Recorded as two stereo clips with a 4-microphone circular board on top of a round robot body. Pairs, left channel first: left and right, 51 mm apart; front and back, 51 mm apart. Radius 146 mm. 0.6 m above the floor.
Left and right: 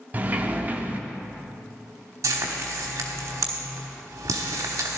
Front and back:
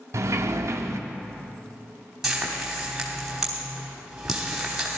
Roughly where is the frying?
Right.